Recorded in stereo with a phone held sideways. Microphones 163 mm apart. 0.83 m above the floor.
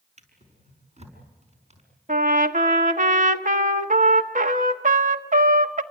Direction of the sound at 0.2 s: 45° right (ahead or behind).